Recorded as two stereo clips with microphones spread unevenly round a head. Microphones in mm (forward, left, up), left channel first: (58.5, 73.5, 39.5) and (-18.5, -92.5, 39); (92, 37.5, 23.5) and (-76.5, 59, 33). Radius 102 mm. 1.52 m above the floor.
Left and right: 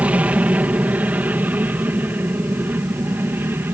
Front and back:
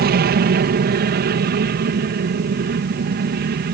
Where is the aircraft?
165° left.